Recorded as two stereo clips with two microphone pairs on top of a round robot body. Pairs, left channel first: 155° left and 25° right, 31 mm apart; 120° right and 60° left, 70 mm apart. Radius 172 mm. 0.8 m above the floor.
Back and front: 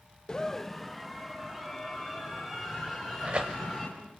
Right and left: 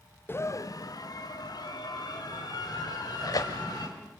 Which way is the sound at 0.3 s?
155° right.